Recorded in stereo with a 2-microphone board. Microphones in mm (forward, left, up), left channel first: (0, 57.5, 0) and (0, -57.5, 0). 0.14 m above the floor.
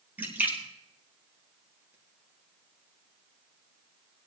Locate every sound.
0.2 s a splash: 15° right (ahead or behind), 3.5 m